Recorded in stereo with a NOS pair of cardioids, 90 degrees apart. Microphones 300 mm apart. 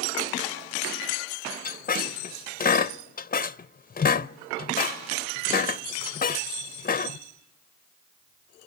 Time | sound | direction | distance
1.6 | a squeak | 30° left | 0.7 m